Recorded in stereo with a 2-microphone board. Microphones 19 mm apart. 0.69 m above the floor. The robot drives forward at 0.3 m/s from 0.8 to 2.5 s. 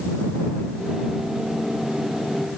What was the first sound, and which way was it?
Only background noise.